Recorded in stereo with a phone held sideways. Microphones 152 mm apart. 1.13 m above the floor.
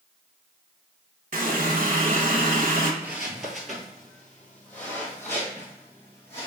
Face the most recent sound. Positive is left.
turn(degrees=20)  # may be behind; listen again after turning